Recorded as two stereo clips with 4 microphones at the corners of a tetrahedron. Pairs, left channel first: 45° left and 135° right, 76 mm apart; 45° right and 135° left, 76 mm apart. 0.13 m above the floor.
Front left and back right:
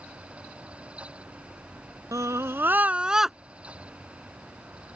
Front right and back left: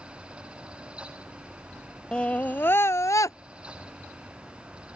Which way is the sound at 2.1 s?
120° right.